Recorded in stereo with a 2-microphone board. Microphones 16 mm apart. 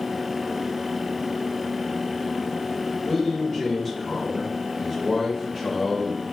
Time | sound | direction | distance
3.0 | a man speaking | 15° left (ahead or behind) | 1.3 m